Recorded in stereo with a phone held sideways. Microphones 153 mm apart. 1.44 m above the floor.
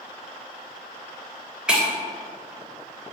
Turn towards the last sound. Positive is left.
turn(degrees=-5)  # may be behind; listen again after turning